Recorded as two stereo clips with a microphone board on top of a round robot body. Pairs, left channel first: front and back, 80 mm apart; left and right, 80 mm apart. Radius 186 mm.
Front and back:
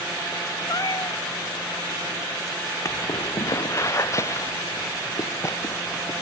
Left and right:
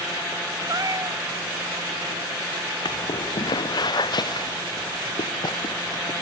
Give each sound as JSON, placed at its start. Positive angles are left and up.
{"t": 0.7, "sound": "a cat meowing", "azimuth_deg": -45}
{"t": 2.9, "sound": "footsteps", "azimuth_deg": 55}